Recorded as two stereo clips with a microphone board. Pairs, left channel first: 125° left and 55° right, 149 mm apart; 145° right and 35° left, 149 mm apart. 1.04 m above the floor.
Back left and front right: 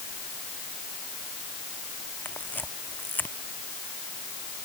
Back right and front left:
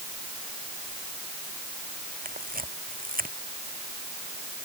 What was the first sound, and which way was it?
A camera shutter, 45° left.